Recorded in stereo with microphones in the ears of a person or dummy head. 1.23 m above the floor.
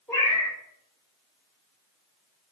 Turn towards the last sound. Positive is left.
turn(degrees=10)  # may be behind; listen again after turning